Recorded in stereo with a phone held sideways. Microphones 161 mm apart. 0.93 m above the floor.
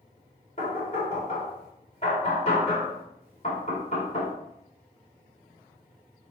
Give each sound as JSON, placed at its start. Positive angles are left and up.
{"t": 0.6, "sound": "knocking", "side_deg": 45, "distance_m": 2.5}